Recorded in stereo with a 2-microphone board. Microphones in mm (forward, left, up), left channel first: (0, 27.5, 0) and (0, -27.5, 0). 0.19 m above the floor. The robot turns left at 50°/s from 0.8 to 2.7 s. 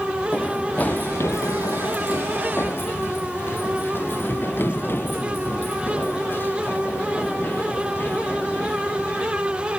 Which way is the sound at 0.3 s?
30° left (ahead or behind).